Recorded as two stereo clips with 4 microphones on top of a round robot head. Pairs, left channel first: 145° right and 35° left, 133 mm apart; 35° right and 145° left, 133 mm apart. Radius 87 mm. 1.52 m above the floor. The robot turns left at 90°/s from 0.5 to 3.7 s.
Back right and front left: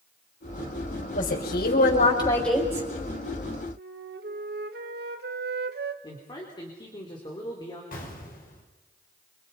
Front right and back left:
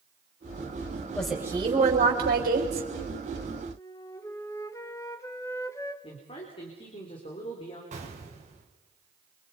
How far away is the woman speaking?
About 5.5 m.